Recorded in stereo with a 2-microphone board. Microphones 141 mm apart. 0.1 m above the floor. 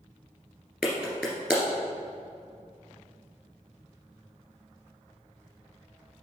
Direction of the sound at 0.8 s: 5° right (ahead or behind).